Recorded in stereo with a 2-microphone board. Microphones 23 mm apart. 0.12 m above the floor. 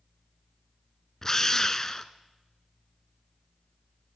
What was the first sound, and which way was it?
A drill, 20° left (ahead or behind).